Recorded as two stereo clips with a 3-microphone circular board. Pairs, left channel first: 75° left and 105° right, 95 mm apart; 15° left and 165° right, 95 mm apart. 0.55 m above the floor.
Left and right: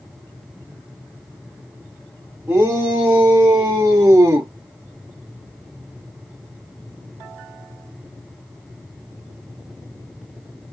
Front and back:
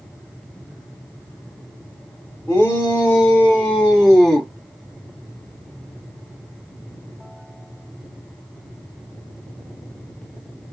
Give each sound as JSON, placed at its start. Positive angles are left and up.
{"t": 2.5, "sound": "a shout", "azimuth_deg": -50, "distance_m": 1.6}